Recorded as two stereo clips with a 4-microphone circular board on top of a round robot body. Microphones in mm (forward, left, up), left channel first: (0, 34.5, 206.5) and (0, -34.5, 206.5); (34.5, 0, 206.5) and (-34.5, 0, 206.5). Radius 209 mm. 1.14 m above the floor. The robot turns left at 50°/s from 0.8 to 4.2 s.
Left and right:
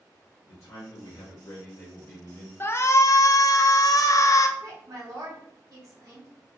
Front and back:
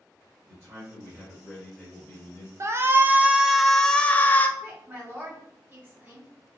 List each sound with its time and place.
0.5 s a man speaking: 120° left, 0.7 m; by 2.5 s 35° left, 0.7 m
2.6 s a shout: 140° left, 0.6 m; by 4.5 s 60° left, 0.6 m
4.6 s a woman speaking: 120° right, 1.6 m